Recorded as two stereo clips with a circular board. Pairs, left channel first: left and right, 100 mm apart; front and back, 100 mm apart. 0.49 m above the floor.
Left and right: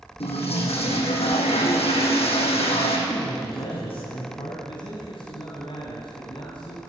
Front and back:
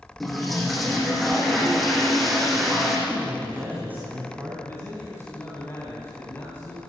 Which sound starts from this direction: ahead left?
A man speaking, at 4.7 s.